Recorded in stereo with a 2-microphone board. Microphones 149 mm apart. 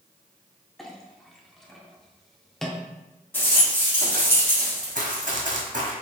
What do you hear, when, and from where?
0.8 s a clink: centre (ahead or behind), 0.6 m
3.3 s a rattle: 15° left (ahead or behind), 1.8 m
5.0 s running footsteps: 65° right (ahead or behind), 1.4 m